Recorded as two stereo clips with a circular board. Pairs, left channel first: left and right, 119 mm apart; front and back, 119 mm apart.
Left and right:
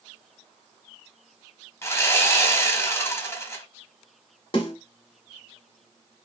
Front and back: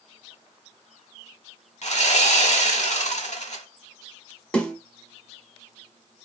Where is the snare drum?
80° left, 1.0 m.